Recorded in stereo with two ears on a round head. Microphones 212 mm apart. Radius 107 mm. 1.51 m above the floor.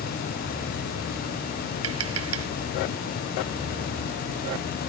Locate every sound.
1.8 s tapping: 70° right (ahead or behind)